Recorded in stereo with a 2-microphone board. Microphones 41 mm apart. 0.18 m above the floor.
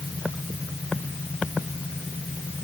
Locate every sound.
Only background noise.